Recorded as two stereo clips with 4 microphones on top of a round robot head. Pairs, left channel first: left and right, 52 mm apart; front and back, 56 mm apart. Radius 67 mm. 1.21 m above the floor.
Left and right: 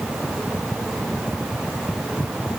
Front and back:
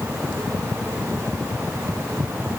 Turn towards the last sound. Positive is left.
No sound to turn to.